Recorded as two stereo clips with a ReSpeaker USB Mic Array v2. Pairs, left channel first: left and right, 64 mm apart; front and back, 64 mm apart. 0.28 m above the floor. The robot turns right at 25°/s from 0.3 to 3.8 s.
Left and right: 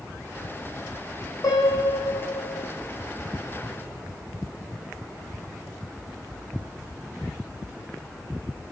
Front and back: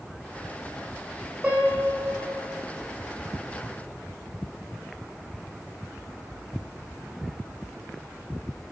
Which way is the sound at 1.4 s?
115° left.